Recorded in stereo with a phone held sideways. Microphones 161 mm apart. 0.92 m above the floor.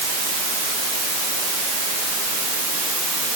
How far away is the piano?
No piano in this recording.